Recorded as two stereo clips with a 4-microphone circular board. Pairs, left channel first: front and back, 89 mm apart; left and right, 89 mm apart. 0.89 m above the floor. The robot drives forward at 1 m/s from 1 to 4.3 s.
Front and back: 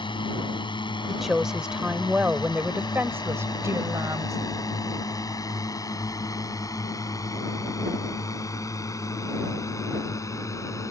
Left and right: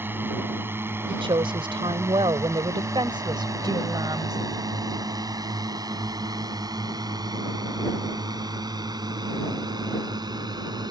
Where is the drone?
25° right; by 10.9 s 55° right.